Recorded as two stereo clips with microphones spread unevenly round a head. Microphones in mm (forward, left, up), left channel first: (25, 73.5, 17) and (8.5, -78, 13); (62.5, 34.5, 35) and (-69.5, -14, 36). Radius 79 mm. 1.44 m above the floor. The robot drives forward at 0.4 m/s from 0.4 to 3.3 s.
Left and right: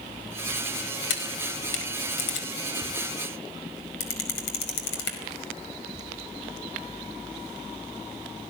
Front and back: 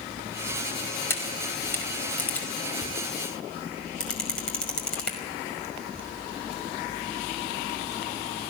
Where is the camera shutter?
95° left, 5 m; by 5.2 s 105° left, 5 m.